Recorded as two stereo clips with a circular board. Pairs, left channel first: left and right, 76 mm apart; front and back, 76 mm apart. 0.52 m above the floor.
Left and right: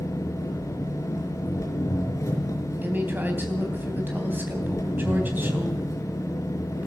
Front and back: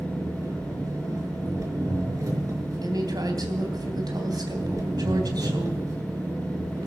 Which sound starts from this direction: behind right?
A woman speaking, at 2.8 s.